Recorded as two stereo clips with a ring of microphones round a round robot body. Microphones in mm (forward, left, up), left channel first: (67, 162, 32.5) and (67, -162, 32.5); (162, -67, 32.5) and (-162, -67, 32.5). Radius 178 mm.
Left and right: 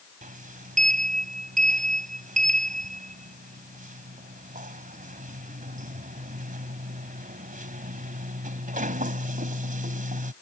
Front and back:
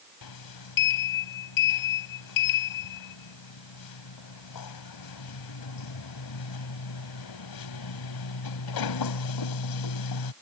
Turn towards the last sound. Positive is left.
turn(degrees=-25)